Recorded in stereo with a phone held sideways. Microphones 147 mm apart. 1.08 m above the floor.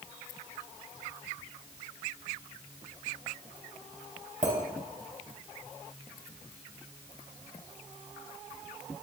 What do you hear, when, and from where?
4.4 s a clink: 55° right (ahead or behind), 3.5 m